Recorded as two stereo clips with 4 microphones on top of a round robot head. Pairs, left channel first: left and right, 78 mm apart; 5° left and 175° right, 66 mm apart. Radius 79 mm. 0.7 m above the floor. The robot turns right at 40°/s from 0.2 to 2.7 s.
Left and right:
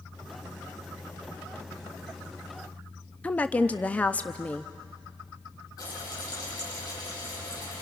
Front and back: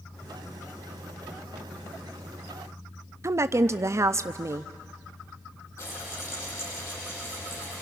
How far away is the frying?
About 8.5 m.